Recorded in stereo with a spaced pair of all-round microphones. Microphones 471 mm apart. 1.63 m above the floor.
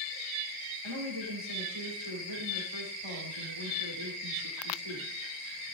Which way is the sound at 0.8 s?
75° right (ahead or behind).